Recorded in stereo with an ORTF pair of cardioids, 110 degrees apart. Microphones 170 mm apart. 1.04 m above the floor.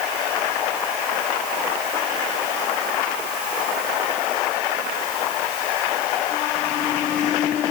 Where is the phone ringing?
I don't hear a phone ringing.